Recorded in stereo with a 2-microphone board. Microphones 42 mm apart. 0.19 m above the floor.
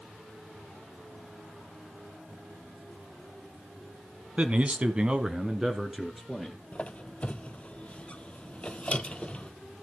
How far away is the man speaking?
About 1.4 m.